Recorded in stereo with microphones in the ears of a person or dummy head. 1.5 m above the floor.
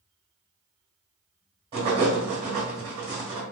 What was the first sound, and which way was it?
Writing, 30° right (ahead or behind).